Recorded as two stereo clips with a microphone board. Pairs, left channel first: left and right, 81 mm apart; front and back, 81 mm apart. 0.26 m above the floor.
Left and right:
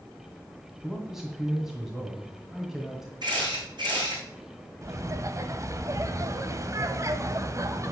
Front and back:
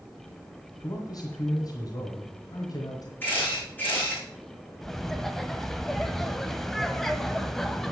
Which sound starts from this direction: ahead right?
A camera shutter, at 3.2 s.